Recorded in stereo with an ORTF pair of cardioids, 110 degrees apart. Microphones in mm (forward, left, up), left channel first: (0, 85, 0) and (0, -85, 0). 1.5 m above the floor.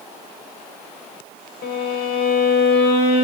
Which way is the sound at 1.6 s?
70° left.